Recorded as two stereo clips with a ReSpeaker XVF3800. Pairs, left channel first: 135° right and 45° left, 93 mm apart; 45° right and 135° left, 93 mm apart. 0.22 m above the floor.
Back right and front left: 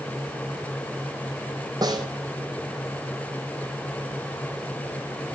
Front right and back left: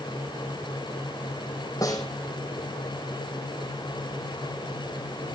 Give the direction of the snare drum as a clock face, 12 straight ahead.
12 o'clock.